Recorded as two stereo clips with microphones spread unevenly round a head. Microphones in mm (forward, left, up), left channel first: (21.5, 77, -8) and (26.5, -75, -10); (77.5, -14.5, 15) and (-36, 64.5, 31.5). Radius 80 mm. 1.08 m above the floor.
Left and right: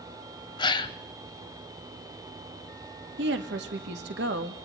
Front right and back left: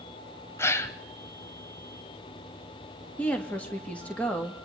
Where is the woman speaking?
115° right, 2.5 m.